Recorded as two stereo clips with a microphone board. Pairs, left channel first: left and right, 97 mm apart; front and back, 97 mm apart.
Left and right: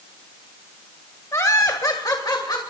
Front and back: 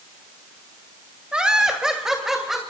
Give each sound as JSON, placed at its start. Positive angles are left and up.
{"t": 1.3, "sound": "laughter", "azimuth_deg": 110, "distance_m": 1.6}